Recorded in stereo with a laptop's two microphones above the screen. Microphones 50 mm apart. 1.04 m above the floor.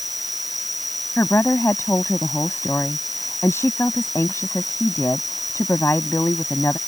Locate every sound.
0.0 s an insect: centre (ahead or behind)
1.2 s a woman speaking: 60° left (ahead or behind)